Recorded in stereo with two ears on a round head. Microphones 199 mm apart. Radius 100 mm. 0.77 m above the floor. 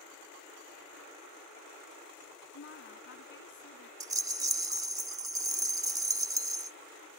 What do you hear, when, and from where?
2.5 s a woman speaking: 60° left (ahead or behind)
4.0 s a rattle: 15° right (ahead or behind)